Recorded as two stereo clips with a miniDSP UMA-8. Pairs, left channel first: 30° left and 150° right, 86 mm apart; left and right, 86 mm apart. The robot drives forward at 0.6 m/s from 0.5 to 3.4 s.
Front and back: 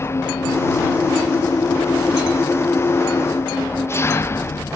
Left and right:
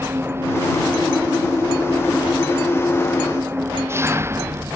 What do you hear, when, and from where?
0.0 s an engine running: 30° right